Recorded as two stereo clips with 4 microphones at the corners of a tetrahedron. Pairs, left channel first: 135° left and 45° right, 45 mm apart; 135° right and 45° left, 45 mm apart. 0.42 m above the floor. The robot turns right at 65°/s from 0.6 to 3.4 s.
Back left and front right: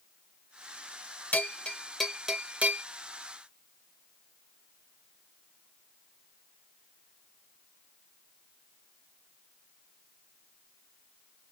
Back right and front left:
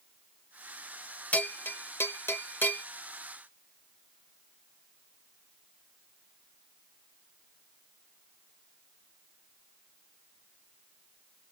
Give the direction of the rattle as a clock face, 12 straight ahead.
No rattle in this recording.